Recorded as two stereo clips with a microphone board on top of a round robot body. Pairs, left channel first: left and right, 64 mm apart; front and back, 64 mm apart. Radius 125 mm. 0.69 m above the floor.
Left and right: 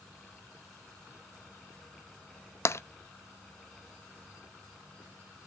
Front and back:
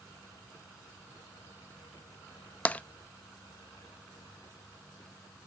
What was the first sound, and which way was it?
Tapping, 65° left.